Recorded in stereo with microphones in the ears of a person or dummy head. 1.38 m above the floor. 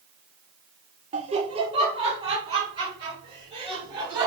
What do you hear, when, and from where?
1.1 s laughter: 35° right (ahead or behind), 0.7 m; by 4.3 s 25° right (ahead or behind), 2.5 m